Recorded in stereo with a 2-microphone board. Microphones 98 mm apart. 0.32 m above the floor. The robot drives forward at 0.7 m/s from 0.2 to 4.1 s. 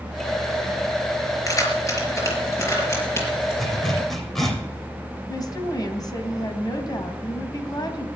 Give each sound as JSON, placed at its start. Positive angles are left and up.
{"t": 1.5, "sound": "keys jangling", "side_deg": 35, "distance_m": 4.0}
{"t": 3.6, "sound": "a zipper", "side_deg": 0, "distance_m": 4.0}
{"t": 5.3, "sound": "a woman speaking", "side_deg": 40, "distance_m": 2.5}